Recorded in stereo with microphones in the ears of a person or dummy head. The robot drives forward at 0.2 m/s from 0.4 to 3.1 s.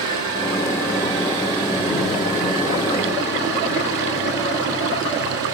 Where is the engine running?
25° right (ahead or behind), 3 m.